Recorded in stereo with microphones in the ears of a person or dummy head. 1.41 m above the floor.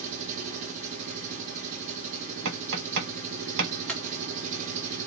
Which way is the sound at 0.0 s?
40° right (ahead or behind).